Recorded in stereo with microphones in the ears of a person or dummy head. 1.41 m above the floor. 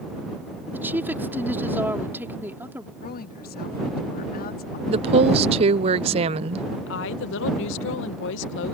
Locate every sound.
0.7 s a woman speaking: 10° right (ahead or behind)
3.0 s a woman speaking: 50° left (ahead or behind)
4.9 s a woman speaking: 30° right (ahead or behind)
6.9 s a woman speaking: 65° left (ahead or behind)